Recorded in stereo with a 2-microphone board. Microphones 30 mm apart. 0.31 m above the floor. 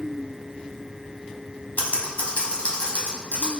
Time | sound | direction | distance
1.8 | typing on a keyboard | 60° left (ahead or behind) | 1.2 m